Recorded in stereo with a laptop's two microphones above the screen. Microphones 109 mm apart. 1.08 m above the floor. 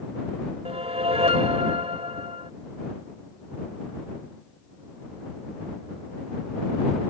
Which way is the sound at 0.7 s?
70° right (ahead or behind).